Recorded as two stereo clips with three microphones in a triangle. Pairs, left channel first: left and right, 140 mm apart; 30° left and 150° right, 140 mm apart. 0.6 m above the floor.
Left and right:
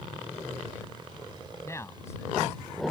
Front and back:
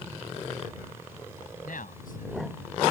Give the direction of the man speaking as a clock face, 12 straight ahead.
11 o'clock.